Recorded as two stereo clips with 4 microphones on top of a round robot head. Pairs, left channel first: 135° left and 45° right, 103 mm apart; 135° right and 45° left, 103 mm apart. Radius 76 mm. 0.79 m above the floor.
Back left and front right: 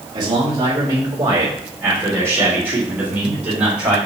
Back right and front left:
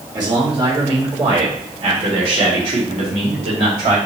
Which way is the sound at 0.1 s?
Straight ahead.